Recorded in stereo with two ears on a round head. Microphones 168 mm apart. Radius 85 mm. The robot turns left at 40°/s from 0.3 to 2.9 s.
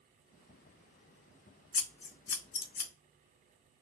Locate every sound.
1.7 s scissors: 80° left, 0.8 m; by 2.9 s 35° left (ahead or behind), 0.8 m